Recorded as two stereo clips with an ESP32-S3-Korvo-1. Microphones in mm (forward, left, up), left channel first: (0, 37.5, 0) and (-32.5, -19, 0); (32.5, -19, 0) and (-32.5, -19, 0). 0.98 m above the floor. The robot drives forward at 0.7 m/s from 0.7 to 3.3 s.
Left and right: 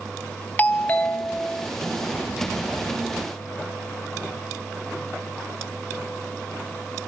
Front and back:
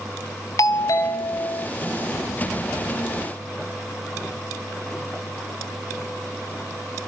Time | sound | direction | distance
0.6 | a doorbell | straight ahead | 1.2 m